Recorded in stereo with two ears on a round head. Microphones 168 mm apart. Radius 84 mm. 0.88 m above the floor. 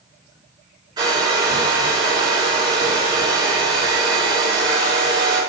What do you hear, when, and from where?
1.0 s a hair dryer: 20° right (ahead or behind), 4 m